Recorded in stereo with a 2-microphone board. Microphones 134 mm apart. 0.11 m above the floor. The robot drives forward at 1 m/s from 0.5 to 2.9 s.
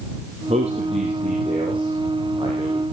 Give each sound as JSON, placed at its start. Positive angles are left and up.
{"t": 0.5, "sound": "a man speaking", "side_deg": -55, "distance_m": 3.0}